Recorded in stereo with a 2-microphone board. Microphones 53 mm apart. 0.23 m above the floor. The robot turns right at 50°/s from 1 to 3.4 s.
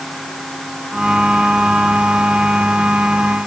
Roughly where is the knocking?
I don't hear knocking.